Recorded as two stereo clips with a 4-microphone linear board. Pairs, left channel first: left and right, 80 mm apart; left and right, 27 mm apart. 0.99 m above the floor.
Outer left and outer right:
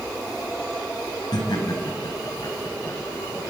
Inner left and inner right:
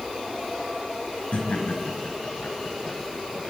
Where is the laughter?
55° left (ahead or behind), 5.5 m; by 3.5 s 45° left (ahead or behind), 5.5 m.